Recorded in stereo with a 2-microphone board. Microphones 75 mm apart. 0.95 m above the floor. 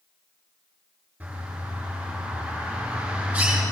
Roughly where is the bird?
Centre.